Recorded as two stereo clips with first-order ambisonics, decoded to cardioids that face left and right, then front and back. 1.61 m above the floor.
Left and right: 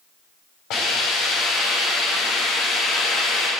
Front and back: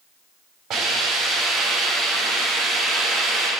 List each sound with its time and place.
0.7 s a hiss: 115° left, 5.5 m